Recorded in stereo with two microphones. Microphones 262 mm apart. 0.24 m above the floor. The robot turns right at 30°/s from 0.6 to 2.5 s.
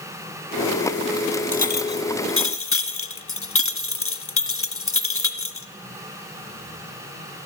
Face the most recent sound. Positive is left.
turn(degrees=55)  # may be behind; listen again after turning